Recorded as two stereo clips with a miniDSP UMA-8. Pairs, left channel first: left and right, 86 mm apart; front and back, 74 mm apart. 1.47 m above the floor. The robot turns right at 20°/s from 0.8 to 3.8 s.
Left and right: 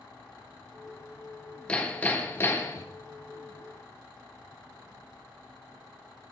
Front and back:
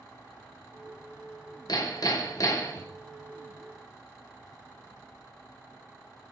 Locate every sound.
1.7 s hammering: 15° left, 1.2 m; by 2.9 s 40° left, 1.2 m